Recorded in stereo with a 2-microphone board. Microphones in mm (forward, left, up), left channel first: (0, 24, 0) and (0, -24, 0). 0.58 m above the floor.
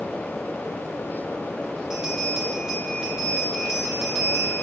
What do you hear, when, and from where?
1.9 s a bell: 10° right (ahead or behind), 7 m